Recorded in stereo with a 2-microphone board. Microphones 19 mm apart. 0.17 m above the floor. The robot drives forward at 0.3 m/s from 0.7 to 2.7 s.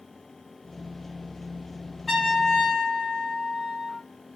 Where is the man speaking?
I don't hear a man speaking.